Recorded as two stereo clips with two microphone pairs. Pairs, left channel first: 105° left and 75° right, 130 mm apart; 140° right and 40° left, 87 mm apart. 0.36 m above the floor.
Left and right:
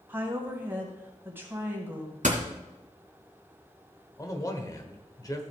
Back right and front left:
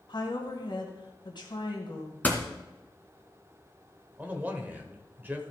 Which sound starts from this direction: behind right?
A woman speaking, at 0.1 s.